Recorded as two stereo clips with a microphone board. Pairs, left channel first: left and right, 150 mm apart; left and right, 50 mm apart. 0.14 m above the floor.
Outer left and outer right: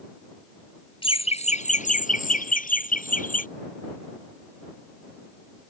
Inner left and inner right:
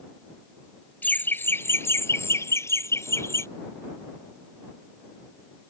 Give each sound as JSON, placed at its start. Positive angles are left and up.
{"t": 1.0, "sound": "laughter", "side_deg": 35}